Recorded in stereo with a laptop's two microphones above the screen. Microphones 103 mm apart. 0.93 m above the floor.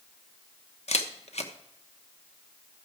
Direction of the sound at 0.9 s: 80° left.